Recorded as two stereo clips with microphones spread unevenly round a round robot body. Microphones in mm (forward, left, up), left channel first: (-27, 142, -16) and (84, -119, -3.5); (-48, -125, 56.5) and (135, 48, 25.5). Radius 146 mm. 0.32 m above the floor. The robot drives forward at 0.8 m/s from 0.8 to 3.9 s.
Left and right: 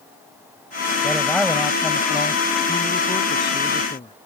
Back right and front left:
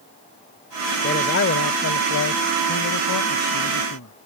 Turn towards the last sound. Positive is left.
turn(degrees=-175)